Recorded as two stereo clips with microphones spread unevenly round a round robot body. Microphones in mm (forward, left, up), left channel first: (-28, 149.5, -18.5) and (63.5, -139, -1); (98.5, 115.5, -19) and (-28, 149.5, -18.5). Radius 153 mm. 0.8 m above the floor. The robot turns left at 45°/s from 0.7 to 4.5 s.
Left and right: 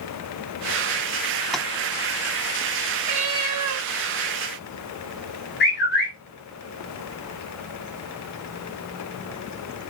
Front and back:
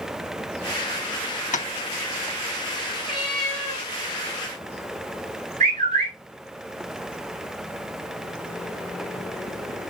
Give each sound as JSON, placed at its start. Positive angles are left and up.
{"t": 1.5, "sound": "tapping", "azimuth_deg": 20, "distance_m": 0.7}
{"t": 3.0, "sound": "a cat meowing", "azimuth_deg": -90, "distance_m": 2.5}
{"t": 5.6, "sound": "a bird", "azimuth_deg": 165, "distance_m": 2.0}